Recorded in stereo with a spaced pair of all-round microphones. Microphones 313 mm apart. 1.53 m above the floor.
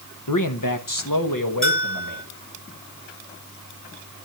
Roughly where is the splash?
No splash in this recording.